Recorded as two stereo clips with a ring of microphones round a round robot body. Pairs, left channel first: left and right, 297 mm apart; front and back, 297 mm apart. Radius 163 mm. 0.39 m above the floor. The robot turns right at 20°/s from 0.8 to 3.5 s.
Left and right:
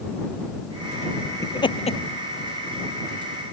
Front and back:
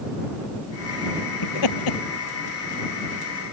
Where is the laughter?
10° left; by 2.0 s 25° left.